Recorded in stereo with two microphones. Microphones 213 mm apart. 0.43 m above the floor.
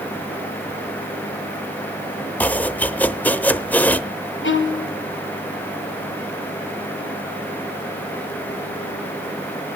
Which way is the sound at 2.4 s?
10° left (ahead or behind).